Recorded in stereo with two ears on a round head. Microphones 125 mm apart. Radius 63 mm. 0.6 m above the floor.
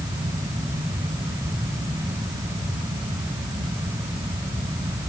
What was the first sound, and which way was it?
Only background noise.